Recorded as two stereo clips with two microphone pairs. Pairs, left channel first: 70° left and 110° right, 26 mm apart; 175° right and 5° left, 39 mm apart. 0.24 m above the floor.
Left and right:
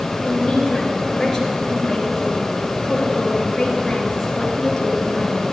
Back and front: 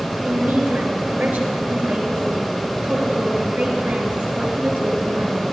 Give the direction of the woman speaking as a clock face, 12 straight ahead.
12 o'clock.